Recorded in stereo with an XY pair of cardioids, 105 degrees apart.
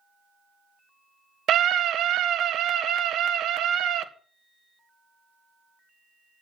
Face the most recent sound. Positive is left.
turn(degrees=-70)